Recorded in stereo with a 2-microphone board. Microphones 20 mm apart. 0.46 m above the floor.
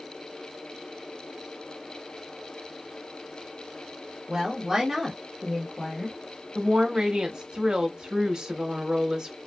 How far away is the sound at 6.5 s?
About 1.1 m.